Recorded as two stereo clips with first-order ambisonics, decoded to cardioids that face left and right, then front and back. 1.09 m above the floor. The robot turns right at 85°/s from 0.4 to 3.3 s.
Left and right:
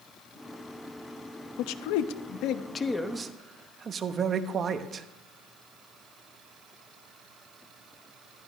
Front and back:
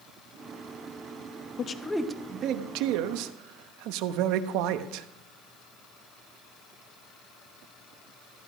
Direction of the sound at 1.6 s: 60° left.